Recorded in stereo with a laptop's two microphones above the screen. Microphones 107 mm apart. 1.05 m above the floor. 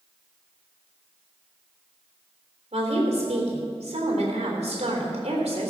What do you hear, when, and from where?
2.7 s a woman speaking: 85° right, 3.5 m